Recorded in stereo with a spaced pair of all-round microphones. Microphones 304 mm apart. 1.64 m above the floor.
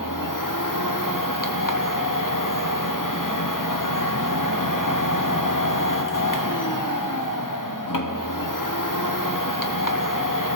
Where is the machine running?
85° left, 1.3 m.